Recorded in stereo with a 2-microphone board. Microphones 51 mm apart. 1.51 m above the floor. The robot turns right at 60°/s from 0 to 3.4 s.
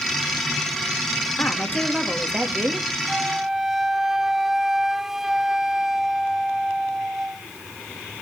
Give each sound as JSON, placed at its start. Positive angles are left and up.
{"t": 1.4, "sound": "a woman speaking", "azimuth_deg": 145, "distance_m": 3.5}
{"t": 3.1, "sound": "a flute", "side_deg": -20, "distance_m": 0.8}